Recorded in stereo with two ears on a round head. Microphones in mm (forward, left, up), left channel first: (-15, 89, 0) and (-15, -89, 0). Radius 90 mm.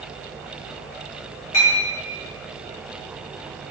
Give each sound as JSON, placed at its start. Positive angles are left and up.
{"t": 1.5, "sound": "a clink", "side_deg": 65, "distance_m": 1.0}